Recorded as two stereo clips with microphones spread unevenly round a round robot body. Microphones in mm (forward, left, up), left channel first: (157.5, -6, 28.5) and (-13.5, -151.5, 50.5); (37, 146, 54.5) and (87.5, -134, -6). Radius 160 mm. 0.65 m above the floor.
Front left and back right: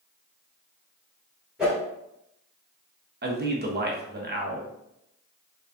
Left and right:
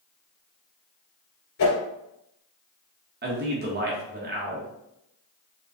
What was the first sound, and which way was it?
A whoosh, 135° left.